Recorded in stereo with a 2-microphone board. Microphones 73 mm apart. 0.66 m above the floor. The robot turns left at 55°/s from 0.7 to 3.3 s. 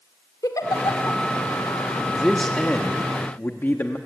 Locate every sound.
0.4 s a giggle: 55° left (ahead or behind), 2.0 m; by 1.2 s 65° left (ahead or behind), 2.0 m
2.1 s a man speaking: 175° right, 1.0 m; by 4.0 s 120° left, 1.0 m